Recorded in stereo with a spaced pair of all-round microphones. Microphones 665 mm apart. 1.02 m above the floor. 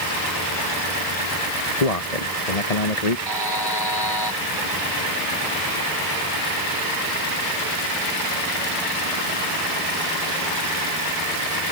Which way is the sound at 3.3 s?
35° left (ahead or behind).